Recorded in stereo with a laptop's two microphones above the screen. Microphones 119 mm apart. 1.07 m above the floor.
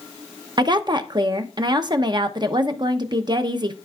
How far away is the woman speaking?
About 0.9 m.